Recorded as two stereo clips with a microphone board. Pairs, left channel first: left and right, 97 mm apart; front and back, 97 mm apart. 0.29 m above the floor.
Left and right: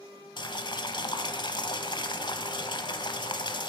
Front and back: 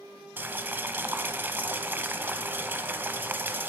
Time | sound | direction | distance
0.4 | boiling | 115° left | 0.7 m